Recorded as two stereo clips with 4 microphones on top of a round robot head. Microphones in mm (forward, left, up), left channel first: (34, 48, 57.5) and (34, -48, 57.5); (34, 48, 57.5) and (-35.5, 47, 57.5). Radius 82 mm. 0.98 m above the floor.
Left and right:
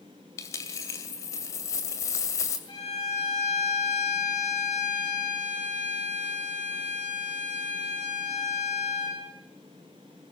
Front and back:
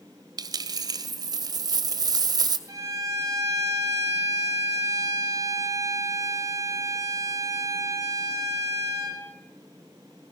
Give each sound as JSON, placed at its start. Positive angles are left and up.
{"t": 0.4, "sound": "a dropped coin", "azimuth_deg": 155, "distance_m": 2.0}
{"t": 2.7, "sound": "a violin", "azimuth_deg": 145, "distance_m": 7.5}